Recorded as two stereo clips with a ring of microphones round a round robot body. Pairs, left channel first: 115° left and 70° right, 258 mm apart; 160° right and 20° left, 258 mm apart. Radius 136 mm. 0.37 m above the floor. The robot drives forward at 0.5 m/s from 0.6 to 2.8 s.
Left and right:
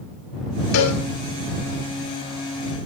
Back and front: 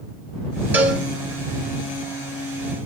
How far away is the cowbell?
About 3 m.